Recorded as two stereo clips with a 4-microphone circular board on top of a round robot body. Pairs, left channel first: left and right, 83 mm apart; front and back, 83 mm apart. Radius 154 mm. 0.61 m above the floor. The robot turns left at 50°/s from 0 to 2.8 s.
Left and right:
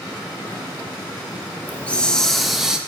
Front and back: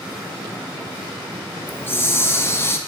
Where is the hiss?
40° left, 1.0 m; by 2.8 s 15° right, 1.0 m.